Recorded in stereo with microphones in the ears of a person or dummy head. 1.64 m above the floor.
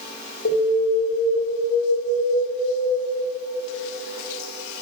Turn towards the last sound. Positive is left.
turn(degrees=60)  # may be behind; listen again after turning